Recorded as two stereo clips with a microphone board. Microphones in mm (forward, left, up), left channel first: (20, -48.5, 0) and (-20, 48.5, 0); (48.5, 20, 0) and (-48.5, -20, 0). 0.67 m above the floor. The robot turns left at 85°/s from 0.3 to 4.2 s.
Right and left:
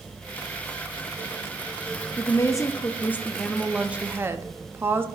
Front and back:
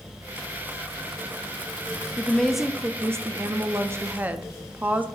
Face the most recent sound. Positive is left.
turn(degrees=150)